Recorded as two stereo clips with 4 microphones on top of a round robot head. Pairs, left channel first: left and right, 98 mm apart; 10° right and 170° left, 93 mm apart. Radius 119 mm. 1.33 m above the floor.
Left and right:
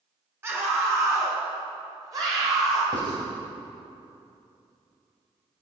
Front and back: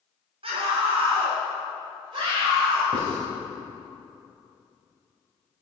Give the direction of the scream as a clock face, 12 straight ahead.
5 o'clock.